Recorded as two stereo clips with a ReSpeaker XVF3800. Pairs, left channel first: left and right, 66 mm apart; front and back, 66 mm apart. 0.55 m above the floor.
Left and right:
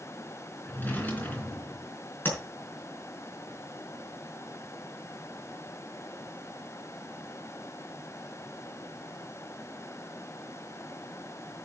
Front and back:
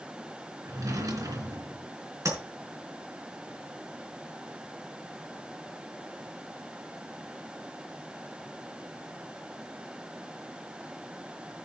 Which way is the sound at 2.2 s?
150° left.